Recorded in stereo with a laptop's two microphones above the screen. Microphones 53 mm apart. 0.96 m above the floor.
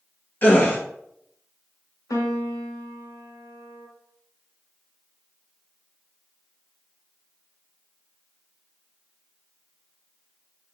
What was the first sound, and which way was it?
A gasp, 30° left (ahead or behind).